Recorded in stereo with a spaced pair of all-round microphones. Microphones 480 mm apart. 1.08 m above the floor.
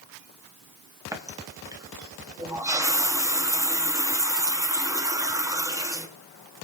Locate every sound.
1.1 s a running tap: 5° right (ahead or behind), 0.8 m